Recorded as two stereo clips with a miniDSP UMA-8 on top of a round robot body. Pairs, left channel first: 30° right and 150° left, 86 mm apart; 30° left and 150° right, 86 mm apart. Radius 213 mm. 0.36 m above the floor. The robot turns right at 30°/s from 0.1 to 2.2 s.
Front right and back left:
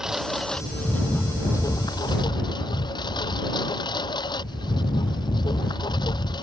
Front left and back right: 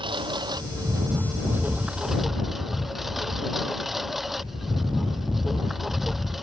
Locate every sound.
0.0 s a lawn mower: 125° right; by 6.4 s 65° right